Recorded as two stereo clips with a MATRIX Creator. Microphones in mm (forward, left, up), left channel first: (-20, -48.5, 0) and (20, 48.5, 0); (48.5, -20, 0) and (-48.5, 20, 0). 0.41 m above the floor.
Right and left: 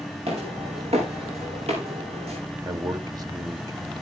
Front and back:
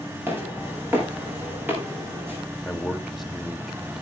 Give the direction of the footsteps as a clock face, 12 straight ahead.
9 o'clock.